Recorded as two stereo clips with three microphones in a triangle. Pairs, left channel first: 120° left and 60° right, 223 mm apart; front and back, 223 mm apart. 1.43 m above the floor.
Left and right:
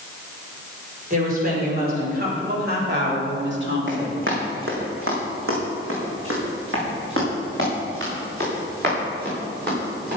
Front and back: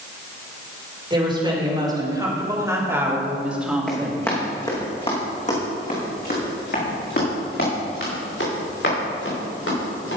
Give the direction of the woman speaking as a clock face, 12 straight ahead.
4 o'clock.